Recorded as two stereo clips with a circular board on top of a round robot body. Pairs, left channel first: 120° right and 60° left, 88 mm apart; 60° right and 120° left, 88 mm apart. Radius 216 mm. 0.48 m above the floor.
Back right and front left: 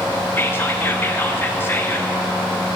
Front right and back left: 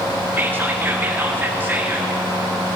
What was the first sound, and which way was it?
Whispering, straight behind.